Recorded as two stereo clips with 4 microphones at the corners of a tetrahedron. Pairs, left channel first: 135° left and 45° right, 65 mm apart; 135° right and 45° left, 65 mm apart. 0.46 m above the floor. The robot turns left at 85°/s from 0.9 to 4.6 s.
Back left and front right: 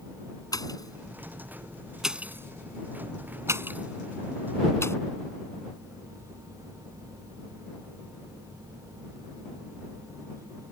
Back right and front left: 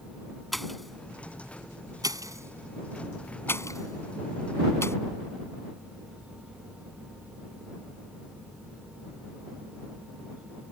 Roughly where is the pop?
Behind left.